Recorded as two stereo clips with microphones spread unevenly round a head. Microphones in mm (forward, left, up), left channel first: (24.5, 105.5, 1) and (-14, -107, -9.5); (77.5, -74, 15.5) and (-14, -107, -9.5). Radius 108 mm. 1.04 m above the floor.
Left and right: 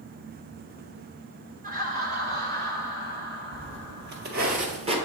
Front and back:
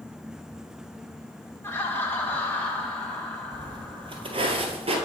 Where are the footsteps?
115° right, 1.9 m; by 5.0 s 160° right, 1.4 m.